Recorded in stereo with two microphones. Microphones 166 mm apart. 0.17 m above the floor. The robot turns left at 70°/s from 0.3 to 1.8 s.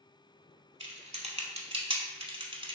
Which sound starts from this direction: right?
Typing on a keyboard, at 0.8 s.